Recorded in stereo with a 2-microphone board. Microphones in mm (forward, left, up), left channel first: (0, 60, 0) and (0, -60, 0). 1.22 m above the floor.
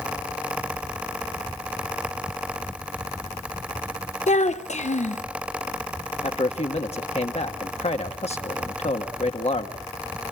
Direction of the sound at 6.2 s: 60° left (ahead or behind).